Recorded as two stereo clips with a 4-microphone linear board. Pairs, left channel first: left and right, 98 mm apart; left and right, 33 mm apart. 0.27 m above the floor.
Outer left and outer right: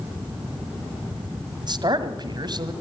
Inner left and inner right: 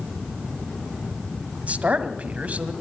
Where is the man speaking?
45° right (ahead or behind), 1.7 m.